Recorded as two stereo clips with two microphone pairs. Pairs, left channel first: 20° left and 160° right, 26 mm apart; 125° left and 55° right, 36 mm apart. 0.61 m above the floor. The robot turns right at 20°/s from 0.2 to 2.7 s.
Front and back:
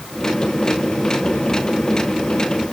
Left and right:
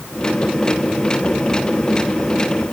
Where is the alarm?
I don't hear an alarm.